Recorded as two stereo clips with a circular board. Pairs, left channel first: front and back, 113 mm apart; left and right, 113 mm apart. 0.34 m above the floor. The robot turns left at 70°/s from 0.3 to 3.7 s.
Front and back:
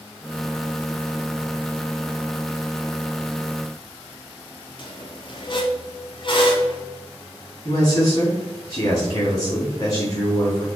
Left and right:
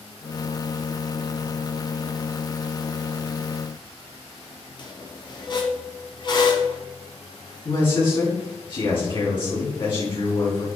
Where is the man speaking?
55° left, 3 m.